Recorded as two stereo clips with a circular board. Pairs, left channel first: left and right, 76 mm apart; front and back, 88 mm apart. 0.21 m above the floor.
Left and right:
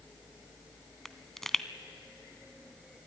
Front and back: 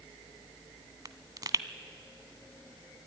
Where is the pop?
175° left, 0.7 m.